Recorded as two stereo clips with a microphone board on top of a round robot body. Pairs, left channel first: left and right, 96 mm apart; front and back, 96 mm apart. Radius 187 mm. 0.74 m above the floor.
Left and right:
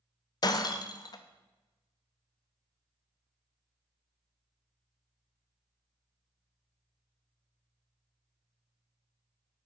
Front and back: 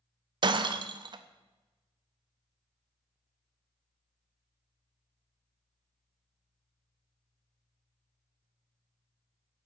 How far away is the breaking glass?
About 0.6 m.